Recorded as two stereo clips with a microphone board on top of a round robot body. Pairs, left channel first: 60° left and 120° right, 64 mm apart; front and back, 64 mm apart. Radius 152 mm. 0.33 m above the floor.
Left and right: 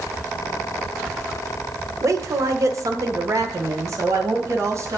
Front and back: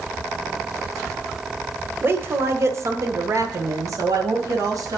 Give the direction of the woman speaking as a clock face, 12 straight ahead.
4 o'clock.